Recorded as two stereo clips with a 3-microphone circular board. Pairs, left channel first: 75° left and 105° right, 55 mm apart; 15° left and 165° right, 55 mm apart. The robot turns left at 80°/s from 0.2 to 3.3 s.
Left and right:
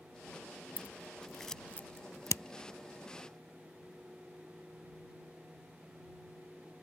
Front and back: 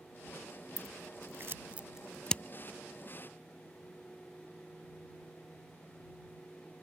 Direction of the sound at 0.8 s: 150° right.